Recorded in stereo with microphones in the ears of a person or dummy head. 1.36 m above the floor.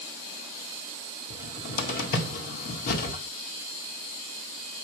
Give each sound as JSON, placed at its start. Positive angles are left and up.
{"t": 1.3, "sound": "a cupboard door", "side_deg": 50, "distance_m": 1.7}